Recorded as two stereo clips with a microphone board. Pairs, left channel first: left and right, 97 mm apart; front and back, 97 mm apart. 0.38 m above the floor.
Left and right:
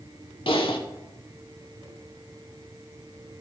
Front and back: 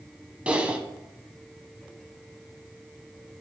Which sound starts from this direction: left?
Typing on a keyboard, at 0.5 s.